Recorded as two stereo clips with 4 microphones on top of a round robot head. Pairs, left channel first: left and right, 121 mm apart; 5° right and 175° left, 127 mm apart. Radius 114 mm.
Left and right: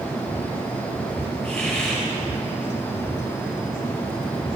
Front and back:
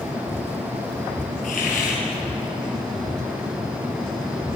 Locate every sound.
1.4 s a hiss: 10° left, 4.5 m